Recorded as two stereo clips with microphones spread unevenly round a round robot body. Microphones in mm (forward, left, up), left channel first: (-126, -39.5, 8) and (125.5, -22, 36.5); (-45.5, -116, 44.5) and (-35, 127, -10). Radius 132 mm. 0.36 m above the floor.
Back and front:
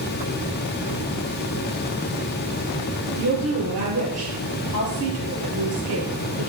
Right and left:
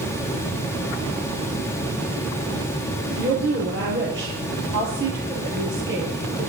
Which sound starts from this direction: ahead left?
A woman speaking, at 3.1 s.